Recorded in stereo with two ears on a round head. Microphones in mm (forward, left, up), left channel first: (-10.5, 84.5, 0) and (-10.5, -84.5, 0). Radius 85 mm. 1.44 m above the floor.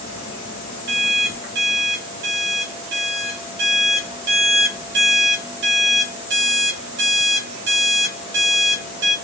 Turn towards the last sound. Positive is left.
turn(degrees=-65)  # may be behind; listen again after turning